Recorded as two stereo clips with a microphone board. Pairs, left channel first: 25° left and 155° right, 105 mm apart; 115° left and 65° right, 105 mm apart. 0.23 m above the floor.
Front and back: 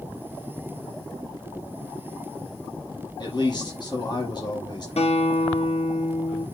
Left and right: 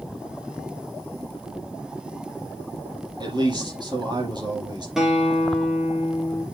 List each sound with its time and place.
3.2 s a man speaking: 25° right, 5.5 m
5.0 s a guitar: 20° left, 3 m